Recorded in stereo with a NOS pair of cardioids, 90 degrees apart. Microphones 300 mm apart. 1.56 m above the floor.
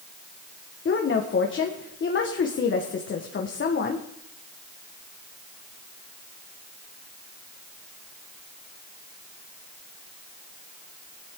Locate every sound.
0.8 s a woman speaking: 40° left, 1.6 m